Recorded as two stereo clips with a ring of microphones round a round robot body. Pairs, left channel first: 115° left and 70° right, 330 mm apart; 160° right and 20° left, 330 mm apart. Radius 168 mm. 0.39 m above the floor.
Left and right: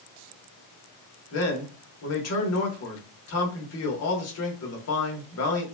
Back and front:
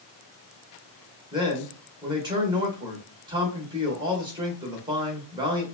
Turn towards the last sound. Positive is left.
turn(degrees=95)